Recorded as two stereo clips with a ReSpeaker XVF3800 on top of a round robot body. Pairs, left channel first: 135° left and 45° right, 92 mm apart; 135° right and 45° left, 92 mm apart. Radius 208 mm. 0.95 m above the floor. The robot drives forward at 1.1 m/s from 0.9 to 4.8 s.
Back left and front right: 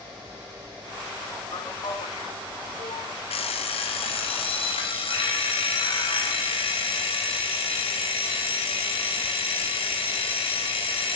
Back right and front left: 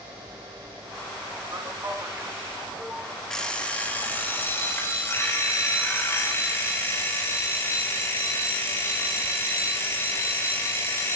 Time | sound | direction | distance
1.5 | a man speaking | 100° left | 3 m
3.3 | an alarm clock | 140° left | 1.7 m